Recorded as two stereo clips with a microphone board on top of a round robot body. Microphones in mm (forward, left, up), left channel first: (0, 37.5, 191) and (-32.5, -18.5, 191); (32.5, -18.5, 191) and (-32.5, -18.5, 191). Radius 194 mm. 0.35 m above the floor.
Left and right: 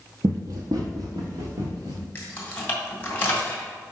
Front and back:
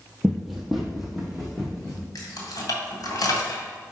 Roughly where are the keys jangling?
Ahead.